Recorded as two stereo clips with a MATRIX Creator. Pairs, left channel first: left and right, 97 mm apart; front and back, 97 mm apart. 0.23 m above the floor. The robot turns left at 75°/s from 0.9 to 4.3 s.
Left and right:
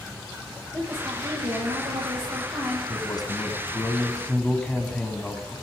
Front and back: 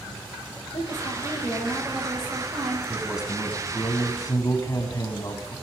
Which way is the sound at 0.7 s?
20° right.